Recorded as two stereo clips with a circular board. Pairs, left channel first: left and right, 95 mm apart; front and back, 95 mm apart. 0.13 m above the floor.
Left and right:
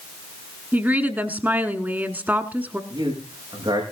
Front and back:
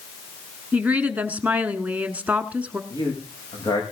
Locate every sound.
0.7 s a woman speaking: 130° right, 1.1 m
2.9 s a man speaking: 45° right, 8 m